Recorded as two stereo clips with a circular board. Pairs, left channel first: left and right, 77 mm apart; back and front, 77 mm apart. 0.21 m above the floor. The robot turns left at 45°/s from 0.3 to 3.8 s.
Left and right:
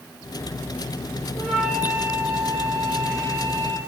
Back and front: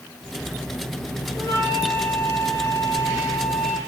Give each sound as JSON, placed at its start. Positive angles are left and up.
{"t": 1.3, "sound": "a flute", "azimuth_deg": 15, "distance_m": 5.0}